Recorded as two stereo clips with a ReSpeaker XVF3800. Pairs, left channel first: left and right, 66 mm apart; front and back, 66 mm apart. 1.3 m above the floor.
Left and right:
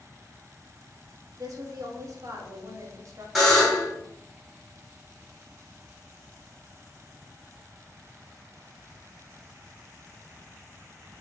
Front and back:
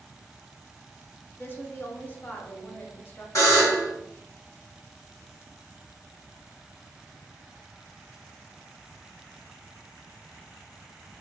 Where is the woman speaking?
60° right, 0.8 m.